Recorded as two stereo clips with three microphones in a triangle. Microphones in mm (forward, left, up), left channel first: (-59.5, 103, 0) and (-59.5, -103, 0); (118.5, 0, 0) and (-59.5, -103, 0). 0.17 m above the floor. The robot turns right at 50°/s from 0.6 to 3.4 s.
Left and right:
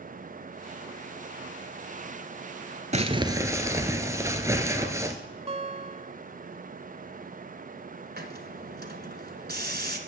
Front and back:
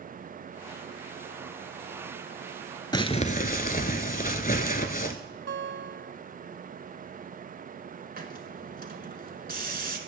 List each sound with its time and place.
2.9 s crumpling: 40° right, 0.7 m; by 5.2 s 15° right, 0.7 m
5.5 s a guitar: 145° right, 0.5 m
8.2 s a hiss: 115° right, 1.1 m